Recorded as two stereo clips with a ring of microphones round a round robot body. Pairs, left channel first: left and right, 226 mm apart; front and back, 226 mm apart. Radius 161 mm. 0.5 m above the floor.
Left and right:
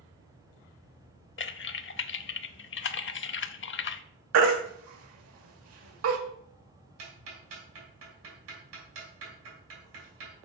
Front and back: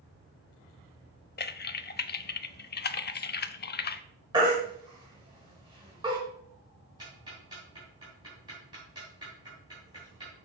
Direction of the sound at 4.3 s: 105° right.